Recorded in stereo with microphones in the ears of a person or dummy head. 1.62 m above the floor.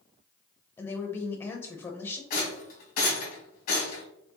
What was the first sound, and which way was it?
A woman speaking, 20° left (ahead or behind).